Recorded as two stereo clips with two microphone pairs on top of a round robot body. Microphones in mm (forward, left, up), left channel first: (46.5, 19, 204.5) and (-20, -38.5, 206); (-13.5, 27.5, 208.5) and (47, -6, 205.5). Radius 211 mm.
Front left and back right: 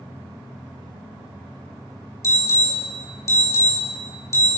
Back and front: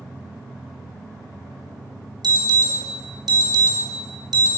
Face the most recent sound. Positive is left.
turn(degrees=-15)